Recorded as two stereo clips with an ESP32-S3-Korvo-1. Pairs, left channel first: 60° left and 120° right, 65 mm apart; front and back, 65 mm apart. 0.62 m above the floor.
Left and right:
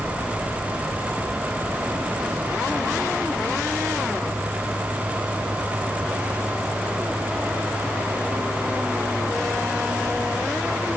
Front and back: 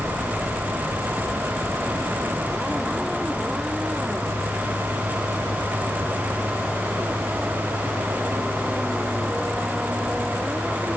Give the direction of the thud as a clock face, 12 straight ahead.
I don't hear a thud.